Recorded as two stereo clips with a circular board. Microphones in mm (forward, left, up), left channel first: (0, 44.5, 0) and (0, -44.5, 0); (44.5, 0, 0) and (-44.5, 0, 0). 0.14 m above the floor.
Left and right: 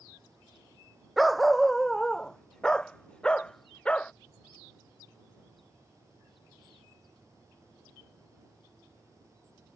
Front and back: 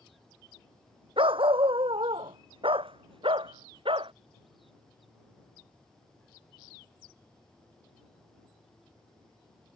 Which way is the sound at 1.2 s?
Straight behind.